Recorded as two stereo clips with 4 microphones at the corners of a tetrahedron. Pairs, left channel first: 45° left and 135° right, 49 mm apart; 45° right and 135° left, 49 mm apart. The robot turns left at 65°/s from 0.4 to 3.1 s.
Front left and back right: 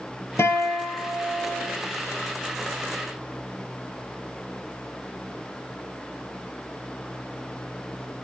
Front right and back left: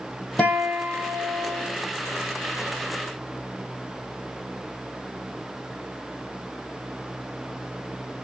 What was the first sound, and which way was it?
A guitar, 20° left.